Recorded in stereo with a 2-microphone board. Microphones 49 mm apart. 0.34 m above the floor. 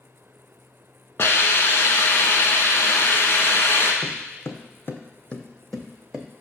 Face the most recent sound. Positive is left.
turn(degrees=-10)  # may be behind; listen again after turning